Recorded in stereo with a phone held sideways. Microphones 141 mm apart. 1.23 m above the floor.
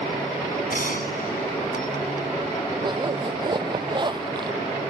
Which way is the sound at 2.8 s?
30° right (ahead or behind).